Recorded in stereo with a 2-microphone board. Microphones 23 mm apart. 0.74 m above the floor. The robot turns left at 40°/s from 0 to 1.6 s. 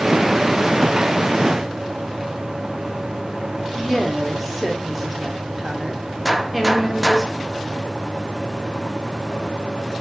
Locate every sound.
3.8 s a woman speaking: 10° right (ahead or behind), 2 m
6.2 s a gunshot: 5° right (ahead or behind), 0.6 m